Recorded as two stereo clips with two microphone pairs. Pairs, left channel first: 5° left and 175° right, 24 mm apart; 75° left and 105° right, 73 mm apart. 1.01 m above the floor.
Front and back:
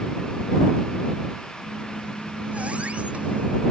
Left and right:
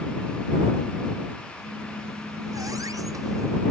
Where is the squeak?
145° right.